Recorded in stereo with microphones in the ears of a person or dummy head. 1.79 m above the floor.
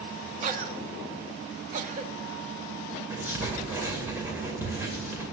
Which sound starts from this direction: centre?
Writing, at 3.1 s.